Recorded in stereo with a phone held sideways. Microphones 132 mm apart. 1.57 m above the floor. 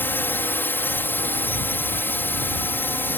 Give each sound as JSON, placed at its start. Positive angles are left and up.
{"t": 0.0, "sound": "a drone", "side_deg": 15}